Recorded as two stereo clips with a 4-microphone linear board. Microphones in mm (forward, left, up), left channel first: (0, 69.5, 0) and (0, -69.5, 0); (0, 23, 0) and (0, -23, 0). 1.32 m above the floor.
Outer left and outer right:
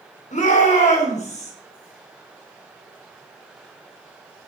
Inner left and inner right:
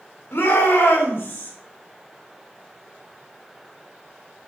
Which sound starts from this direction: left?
A shout, at 0.3 s.